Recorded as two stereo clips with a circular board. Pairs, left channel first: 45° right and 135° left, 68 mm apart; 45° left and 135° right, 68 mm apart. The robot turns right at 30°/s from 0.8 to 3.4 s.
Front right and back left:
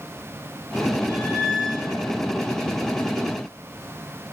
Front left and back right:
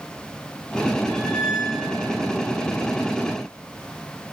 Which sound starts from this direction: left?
A squeak, at 1.1 s.